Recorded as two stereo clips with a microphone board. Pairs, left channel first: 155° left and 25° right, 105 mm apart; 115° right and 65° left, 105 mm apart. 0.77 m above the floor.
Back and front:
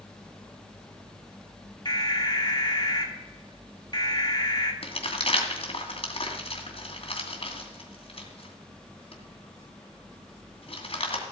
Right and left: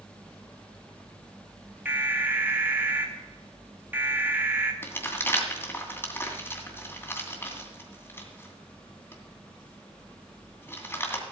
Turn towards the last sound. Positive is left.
turn(degrees=180)